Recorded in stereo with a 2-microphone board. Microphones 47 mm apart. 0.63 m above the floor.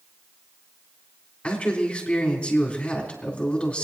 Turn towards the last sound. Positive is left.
turn(degrees=20)  # may be behind; listen again after turning